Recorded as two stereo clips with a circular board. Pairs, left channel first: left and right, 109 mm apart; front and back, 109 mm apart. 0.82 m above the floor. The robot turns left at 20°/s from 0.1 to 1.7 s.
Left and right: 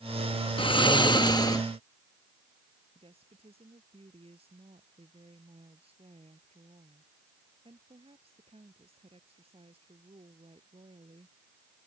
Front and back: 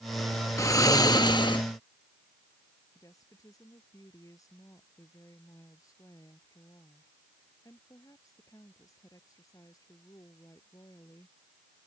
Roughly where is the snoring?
Ahead left.